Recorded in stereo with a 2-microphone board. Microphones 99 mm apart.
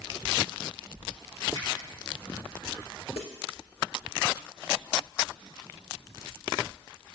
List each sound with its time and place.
1.6 s a finger snap: 35° left (ahead or behind), 5.5 m
3.2 s a snare drum: 70° left (ahead or behind), 3.5 m